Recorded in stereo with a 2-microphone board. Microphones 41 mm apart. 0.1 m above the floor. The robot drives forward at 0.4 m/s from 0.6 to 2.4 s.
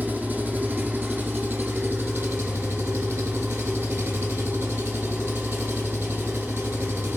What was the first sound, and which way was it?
An engine running, 50° right (ahead or behind).